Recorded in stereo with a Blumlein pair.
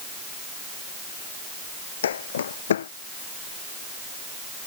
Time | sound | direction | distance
2.0 | footsteps | 65° left | ?